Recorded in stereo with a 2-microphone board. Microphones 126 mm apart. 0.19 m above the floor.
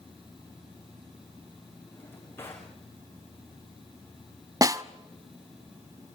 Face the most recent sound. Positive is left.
turn(degrees=-25)  # may be behind; listen again after turning